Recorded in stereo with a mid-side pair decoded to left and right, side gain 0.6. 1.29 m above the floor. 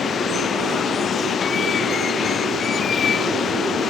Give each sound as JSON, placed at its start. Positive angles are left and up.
{"t": 0.0, "sound": "running water", "azimuth_deg": 35}